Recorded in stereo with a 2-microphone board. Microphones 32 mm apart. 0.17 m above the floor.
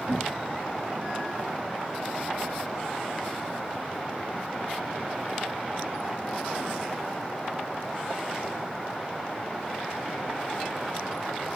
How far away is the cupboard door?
About 3 m.